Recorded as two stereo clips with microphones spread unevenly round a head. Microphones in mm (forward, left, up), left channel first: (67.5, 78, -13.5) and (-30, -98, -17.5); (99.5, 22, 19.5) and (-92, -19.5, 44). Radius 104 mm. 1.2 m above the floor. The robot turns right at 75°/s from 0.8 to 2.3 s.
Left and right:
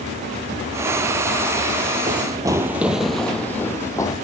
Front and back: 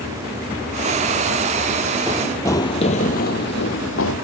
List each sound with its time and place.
2.1 s running footsteps: 125° right, 1.3 m; by 4.2 s 10° right, 2 m